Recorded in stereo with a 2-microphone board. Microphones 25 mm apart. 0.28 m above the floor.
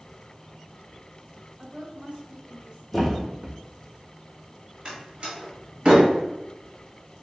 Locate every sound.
1.6 s a woman speaking: 20° right (ahead or behind), 1.0 m; by 2.8 s 40° right (ahead or behind), 1.5 m
2.9 s a thud: 5° left (ahead or behind), 0.9 m
4.8 s a door slam: 40° right (ahead or behind), 1.4 m